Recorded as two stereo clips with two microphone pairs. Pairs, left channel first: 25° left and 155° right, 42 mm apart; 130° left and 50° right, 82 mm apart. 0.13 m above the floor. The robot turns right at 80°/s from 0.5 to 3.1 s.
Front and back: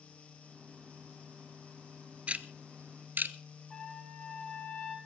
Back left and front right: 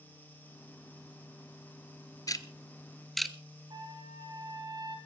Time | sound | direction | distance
2.3 | ticking | 155° left | 0.8 m
3.7 | a trumpet | 50° right | 3 m